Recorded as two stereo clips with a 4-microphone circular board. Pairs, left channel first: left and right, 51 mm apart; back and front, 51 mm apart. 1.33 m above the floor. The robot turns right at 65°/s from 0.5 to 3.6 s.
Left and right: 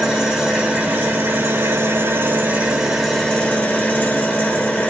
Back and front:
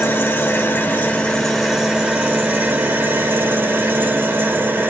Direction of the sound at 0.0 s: 165° right.